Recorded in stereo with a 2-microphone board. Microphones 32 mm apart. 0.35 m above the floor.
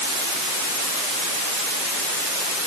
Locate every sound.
Only background noise.